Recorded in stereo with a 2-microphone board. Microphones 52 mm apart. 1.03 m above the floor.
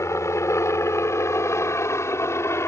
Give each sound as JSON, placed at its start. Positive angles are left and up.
{"t": 0.0, "sound": "a helicopter", "side_deg": 65}